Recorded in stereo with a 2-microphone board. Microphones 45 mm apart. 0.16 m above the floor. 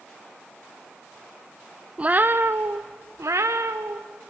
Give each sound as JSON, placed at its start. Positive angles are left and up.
{"t": 2.0, "sound": "a cat meowing", "side_deg": -25, "distance_m": 0.8}